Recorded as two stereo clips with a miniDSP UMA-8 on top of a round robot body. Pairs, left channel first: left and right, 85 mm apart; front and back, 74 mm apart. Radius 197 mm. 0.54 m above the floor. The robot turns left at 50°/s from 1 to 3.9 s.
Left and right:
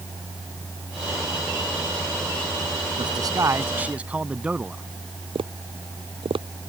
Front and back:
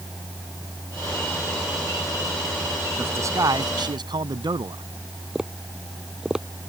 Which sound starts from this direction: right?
Tapping, at 5.3 s.